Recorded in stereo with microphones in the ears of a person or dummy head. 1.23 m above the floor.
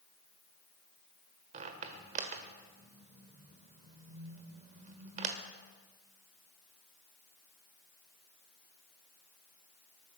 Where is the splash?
I don't hear a splash.